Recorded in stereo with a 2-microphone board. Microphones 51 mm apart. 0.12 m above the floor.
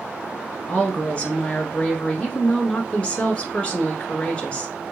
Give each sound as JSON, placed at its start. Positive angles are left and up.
{"t": 0.7, "sound": "a woman speaking", "side_deg": 20, "distance_m": 1.4}